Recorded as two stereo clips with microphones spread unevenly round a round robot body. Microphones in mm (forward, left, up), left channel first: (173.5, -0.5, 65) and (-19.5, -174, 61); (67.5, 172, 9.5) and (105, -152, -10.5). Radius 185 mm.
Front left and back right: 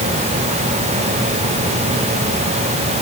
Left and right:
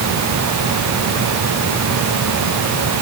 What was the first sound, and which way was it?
Only background noise.